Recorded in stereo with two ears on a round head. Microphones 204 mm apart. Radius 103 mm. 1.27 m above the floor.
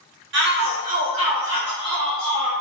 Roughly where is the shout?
Right.